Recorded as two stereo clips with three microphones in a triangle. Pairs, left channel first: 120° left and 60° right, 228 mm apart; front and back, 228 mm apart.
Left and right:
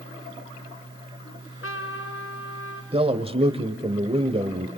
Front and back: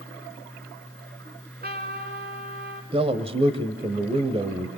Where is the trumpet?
135° left, 3.5 m.